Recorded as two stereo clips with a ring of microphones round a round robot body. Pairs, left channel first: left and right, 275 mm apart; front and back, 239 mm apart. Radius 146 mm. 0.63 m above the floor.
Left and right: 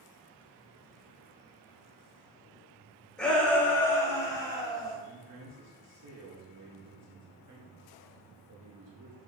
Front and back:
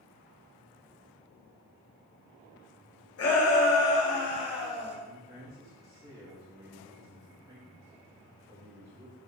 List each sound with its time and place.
3.2 s a shout: 5° left, 2.5 m; by 5.0 s 15° left, 4 m
5.0 s a man speaking: 105° right, 2 m